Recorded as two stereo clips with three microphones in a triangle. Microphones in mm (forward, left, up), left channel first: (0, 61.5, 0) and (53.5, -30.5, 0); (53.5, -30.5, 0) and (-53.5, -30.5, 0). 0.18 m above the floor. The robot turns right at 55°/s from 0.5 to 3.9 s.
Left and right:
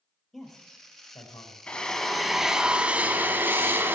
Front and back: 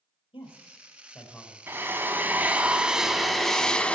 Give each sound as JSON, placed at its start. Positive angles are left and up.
{"t": 0.3, "sound": "a man speaking", "azimuth_deg": 30, "distance_m": 4.5}
{"t": 1.7, "sound": "a drill", "azimuth_deg": 180, "distance_m": 1.1}